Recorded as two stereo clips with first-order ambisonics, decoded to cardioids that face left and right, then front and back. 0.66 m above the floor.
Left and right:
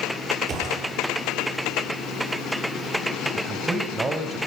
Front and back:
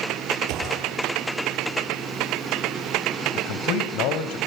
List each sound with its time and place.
0.5 s a gunshot: 150° right, 8 m
3.4 s a man speaking: 15° right, 3 m